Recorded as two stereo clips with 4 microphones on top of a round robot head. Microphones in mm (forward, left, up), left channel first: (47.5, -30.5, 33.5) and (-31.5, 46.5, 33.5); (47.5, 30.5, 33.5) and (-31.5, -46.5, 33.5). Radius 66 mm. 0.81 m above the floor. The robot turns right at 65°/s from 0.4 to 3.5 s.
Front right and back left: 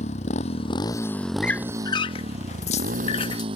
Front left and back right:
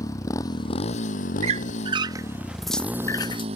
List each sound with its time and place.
0.0 s a motorcycle: 20° right; by 3.6 s 175° right
1.4 s a squeak: 125° right; by 3.5 s 5° left